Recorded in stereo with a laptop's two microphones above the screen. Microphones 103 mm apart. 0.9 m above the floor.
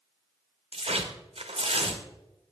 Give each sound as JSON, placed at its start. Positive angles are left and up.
{"t": 0.7, "sound": "tearing paper", "side_deg": -80, "distance_m": 1.2}